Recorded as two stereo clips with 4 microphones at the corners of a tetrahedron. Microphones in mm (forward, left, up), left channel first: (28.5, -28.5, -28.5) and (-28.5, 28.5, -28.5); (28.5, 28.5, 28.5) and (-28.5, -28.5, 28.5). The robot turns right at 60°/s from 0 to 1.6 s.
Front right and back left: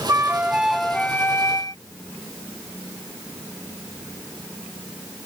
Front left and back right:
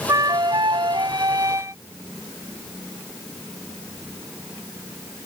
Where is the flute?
175° right; by 1.8 s 85° right.